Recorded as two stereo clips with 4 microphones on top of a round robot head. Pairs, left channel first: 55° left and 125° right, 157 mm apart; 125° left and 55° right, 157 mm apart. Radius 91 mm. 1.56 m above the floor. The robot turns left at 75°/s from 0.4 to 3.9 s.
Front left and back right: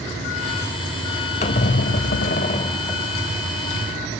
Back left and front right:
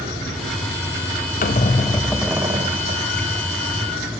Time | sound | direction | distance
1.4 | a squeak | 95° left | 0.6 m